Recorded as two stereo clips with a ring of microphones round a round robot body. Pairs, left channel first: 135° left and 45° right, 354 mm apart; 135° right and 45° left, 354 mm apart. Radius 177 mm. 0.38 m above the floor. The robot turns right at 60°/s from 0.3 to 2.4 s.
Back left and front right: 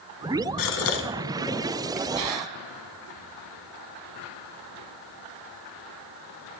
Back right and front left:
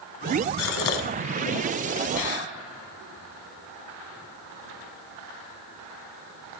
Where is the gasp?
170° left, 0.9 m; by 2.5 s 80° right, 0.9 m.